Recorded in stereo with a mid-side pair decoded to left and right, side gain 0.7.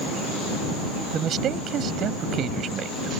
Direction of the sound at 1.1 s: 45° right.